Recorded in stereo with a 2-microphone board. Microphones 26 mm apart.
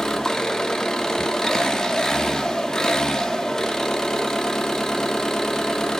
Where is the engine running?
20° left (ahead or behind), 1.8 m.